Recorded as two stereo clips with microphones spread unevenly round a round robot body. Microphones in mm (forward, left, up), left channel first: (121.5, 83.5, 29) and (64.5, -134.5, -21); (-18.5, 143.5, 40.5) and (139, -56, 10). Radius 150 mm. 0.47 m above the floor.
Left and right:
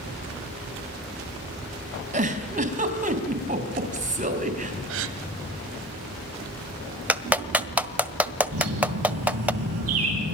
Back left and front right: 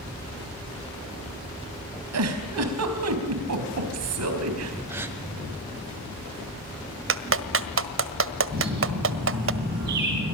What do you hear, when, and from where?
2.1 s a giggle: 55° right, 4 m
4.9 s a gasp: 135° right, 1.3 m
7.1 s a clap: 25° right, 1.6 m
8.5 s a bird: 110° right, 7.5 m